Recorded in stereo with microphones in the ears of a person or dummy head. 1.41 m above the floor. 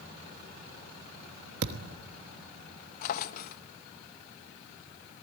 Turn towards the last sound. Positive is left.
turn(degrees=50)  # may be behind; listen again after turning